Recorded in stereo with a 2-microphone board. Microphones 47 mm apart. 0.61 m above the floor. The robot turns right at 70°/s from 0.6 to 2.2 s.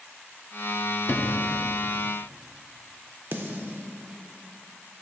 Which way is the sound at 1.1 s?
60° left (ahead or behind).